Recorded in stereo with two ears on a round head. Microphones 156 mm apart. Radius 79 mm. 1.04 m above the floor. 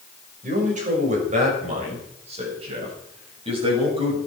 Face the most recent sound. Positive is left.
turn(degrees=-35)  # may be behind; listen again after turning